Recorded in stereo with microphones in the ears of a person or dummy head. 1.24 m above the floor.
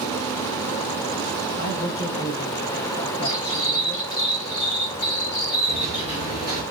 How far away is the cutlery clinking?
About 2 m.